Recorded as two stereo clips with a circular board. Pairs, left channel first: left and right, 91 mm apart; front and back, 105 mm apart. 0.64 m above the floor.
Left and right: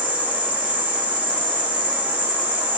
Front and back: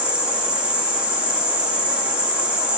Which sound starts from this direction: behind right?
An insect, at 0.0 s.